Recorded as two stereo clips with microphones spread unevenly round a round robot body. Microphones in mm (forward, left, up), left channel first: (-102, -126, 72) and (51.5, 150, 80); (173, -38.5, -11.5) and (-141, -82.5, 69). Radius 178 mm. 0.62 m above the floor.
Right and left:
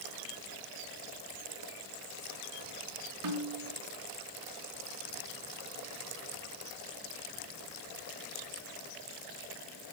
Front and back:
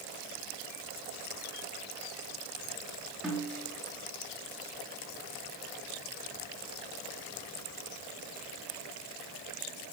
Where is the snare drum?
100° left, 4 m.